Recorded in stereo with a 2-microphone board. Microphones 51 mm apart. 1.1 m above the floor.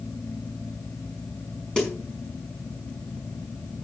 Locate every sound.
1.8 s a snare drum: 15° left (ahead or behind), 5 m